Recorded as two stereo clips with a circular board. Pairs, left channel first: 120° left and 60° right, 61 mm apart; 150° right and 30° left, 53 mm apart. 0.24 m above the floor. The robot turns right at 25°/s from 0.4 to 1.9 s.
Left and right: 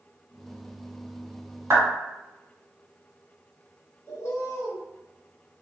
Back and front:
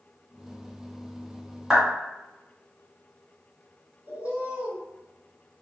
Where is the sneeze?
I don't hear a sneeze.